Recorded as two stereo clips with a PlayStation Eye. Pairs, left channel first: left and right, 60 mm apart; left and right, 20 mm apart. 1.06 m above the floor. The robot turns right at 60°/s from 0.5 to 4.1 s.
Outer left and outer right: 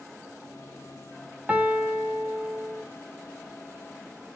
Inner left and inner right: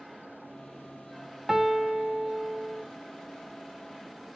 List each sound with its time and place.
1.5 s a piano: 25° right (ahead or behind), 0.8 m; by 2.8 s 15° right (ahead or behind), 0.8 m